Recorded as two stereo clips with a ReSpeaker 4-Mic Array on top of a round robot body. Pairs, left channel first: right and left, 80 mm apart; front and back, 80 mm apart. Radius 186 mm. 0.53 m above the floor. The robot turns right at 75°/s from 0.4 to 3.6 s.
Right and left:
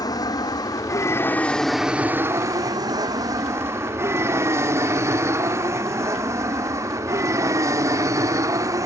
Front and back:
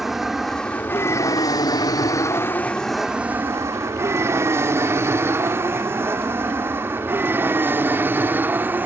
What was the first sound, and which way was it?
An aircraft, 95° right.